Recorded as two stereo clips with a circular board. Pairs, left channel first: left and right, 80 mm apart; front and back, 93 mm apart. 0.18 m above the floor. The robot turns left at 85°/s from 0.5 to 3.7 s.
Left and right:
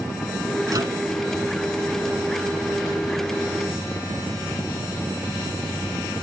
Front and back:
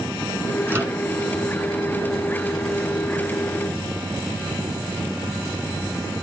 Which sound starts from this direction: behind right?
A microwave, at 0.7 s.